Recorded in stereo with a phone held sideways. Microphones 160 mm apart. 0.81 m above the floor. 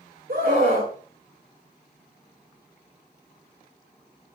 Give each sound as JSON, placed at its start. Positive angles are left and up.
{"t": 0.3, "sound": "a scream", "side_deg": -75, "distance_m": 4.0}